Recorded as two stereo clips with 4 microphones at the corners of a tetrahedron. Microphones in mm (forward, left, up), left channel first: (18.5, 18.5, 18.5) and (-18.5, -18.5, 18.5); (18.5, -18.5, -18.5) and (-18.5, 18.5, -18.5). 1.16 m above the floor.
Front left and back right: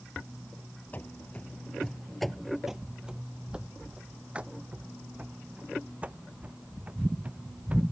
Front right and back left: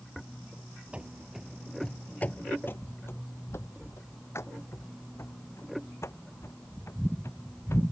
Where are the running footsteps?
80° left; by 7.8 s 70° right.